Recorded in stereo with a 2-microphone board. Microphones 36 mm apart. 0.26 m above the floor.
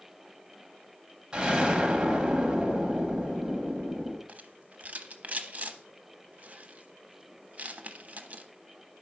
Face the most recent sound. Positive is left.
turn(degrees=-45)  # may be behind; listen again after turning